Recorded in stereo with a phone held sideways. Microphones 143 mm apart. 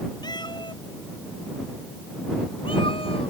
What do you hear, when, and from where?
0.2 s a cat meowing: 30° left (ahead or behind); by 3.3 s 40° left (ahead or behind)